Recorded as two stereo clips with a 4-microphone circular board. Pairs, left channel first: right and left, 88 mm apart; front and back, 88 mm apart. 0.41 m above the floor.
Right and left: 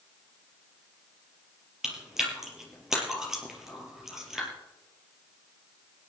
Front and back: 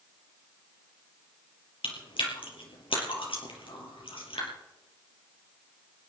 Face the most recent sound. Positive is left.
turn(degrees=5)